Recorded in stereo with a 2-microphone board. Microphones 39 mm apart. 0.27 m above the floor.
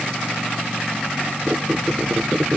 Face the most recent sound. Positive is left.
turn(degrees=-35)  # may be behind; listen again after turning